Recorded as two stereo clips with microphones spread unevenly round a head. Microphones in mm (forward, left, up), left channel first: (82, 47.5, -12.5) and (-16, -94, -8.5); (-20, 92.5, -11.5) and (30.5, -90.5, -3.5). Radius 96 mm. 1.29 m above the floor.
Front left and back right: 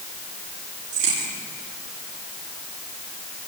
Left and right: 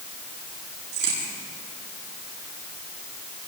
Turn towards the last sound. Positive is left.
turn(degrees=-110)